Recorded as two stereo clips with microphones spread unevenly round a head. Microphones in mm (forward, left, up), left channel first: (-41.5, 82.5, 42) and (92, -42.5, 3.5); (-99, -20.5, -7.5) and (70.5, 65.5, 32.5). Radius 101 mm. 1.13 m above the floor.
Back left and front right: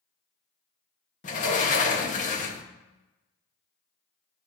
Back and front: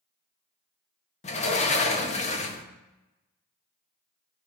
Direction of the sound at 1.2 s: 175° right.